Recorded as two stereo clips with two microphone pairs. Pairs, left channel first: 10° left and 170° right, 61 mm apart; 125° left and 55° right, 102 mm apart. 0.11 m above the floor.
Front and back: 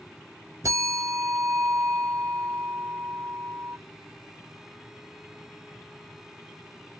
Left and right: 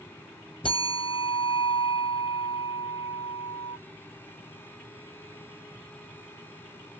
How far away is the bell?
About 0.7 m.